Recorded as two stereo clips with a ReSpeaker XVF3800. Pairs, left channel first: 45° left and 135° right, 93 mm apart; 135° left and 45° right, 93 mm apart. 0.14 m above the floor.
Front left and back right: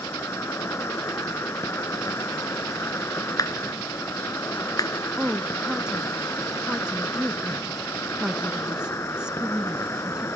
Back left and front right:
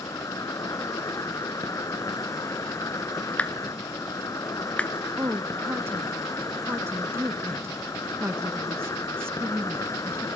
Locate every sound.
0.0 s an insect: 95° left, 1.0 m
3.4 s a clap: 65° left, 1.5 m
5.2 s a woman speaking: 65° right, 1.1 m